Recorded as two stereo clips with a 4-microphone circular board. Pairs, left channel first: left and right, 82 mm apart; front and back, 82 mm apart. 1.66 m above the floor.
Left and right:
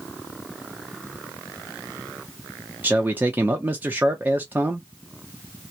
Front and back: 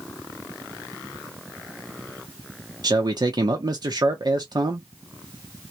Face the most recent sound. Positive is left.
turn(degrees=-155)